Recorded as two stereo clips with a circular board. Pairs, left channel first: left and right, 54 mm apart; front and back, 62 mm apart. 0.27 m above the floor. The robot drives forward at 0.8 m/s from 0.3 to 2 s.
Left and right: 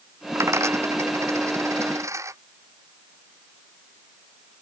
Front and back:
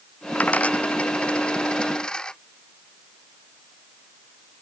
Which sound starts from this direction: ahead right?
A dropped coin, at 0.3 s.